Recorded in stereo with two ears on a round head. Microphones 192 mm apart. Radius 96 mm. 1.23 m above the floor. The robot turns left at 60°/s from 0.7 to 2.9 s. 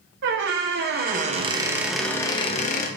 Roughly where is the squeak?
Right.